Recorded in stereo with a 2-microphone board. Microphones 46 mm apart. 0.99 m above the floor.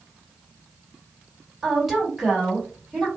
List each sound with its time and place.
1.6 s a woman speaking: 5° right (ahead or behind), 1.7 m